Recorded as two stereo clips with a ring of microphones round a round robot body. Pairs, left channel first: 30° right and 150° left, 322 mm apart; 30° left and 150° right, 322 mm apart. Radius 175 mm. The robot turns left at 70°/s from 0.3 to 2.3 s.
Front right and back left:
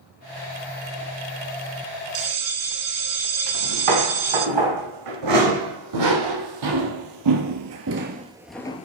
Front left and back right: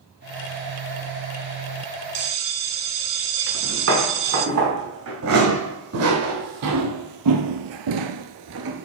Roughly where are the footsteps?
Behind left.